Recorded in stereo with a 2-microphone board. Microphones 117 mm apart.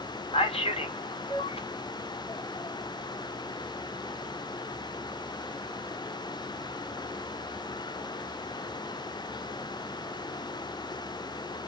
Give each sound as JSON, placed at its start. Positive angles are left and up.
{"t": 0.3, "sound": "a man speaking", "side_deg": 55, "distance_m": 0.8}